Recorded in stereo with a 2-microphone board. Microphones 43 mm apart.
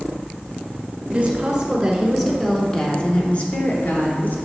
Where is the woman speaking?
25° right (ahead or behind), 1.4 m; by 4.4 s 50° left (ahead or behind), 1.7 m.